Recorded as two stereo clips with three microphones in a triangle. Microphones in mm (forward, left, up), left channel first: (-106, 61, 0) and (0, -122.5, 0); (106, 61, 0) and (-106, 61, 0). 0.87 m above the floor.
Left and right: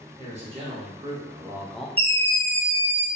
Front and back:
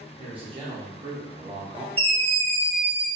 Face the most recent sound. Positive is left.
turn(degrees=-120)